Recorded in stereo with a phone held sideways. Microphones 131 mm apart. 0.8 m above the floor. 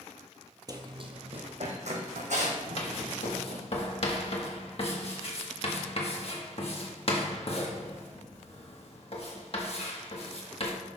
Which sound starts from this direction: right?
Running footsteps, at 0.7 s.